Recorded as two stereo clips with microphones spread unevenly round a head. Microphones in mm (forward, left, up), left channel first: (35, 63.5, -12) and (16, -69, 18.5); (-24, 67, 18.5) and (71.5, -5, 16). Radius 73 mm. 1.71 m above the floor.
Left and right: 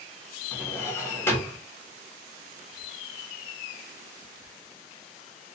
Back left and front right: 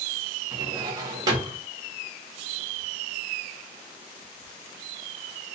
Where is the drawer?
5° left, 1.3 m.